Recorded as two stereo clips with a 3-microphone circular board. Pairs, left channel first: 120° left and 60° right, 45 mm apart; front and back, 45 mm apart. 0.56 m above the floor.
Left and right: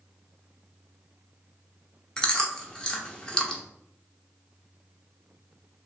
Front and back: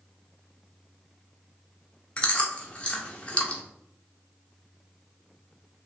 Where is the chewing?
50° left, 0.9 m.